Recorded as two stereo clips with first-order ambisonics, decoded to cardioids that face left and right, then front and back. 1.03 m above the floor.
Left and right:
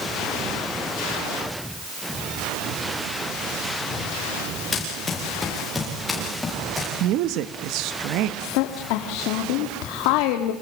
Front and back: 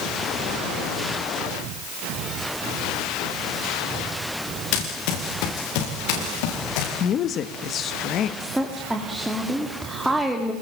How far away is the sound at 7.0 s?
About 1.5 m.